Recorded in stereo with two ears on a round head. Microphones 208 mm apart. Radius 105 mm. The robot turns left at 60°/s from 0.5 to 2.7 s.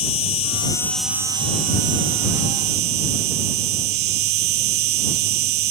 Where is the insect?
30° left; by 5.7 s 100° right.